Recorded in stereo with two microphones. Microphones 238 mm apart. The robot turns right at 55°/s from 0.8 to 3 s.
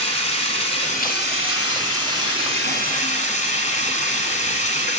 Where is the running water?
25° left, 1.5 m; by 5.0 s 150° left, 1.5 m.